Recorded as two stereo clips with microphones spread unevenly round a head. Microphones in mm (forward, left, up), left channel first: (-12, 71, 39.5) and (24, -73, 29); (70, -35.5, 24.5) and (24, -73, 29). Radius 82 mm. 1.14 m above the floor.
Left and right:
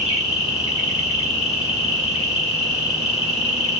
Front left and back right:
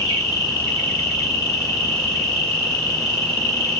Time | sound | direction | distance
0.0 | an insect | 55° left | 1.5 m